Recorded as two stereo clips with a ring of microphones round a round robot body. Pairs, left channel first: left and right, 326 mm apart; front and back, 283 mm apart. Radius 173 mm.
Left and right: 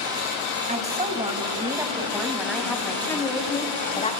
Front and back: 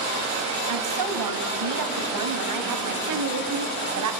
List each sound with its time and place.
0.7 s a woman speaking: 160° right, 3 m; by 4.1 s 165° left, 3 m